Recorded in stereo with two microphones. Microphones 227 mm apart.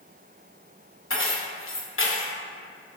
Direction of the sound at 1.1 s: 65° left (ahead or behind).